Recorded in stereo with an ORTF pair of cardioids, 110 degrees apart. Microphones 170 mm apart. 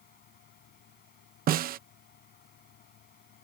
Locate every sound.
0.0 s a fan: 65° left
1.5 s a snare drum: 60° right